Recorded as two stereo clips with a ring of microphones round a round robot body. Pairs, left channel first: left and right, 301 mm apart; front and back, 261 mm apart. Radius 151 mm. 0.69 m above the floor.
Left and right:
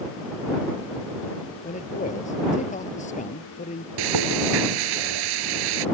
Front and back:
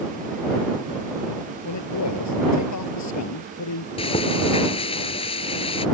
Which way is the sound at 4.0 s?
75° right.